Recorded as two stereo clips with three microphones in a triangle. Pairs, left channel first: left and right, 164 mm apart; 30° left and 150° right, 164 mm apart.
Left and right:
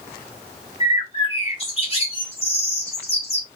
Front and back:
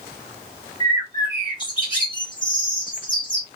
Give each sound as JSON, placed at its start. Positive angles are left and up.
{"t": 0.8, "sound": "a bird", "azimuth_deg": 70, "distance_m": 1.9}